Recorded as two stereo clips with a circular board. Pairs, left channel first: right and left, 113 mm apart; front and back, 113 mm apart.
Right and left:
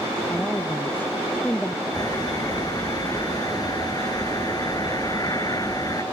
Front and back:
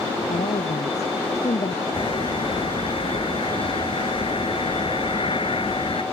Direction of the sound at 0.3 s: 15° right.